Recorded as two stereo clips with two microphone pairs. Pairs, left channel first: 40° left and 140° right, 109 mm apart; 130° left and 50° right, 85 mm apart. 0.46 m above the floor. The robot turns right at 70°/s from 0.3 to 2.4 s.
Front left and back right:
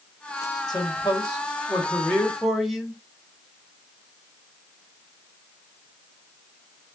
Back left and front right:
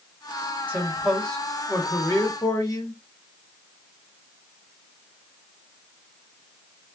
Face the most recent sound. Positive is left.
turn(degrees=135)